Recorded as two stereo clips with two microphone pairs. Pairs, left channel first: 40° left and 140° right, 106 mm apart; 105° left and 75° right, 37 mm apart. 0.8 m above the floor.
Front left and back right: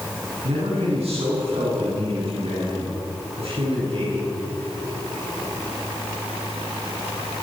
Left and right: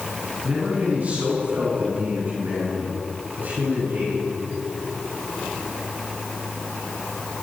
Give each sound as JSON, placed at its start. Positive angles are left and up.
{"t": 0.4, "sound": "a man speaking", "azimuth_deg": -125, "distance_m": 9.0}